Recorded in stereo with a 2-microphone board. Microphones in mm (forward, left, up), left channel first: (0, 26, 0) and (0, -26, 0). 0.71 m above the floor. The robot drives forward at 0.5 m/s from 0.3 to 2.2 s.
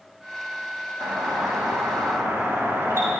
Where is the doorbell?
60° right (ahead or behind), 5.5 m; by 3.1 s 55° right (ahead or behind), 6 m.